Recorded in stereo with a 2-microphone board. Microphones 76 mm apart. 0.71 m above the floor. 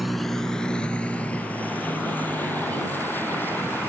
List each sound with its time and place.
0.0 s a vehicle: centre (ahead or behind); by 3.9 s 25° left (ahead or behind)